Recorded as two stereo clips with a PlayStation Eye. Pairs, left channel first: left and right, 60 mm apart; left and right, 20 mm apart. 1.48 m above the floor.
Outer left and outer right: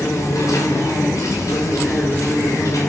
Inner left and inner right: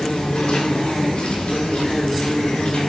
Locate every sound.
0.0 s an insect: 75° left (ahead or behind), 4 m